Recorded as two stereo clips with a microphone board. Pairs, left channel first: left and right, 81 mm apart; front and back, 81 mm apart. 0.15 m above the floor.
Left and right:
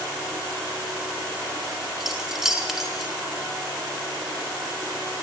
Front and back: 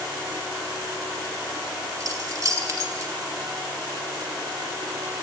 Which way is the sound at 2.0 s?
175° right.